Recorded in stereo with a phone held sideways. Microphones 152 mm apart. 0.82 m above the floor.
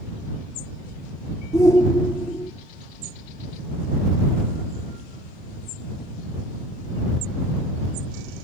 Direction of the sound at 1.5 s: 25° left (ahead or behind).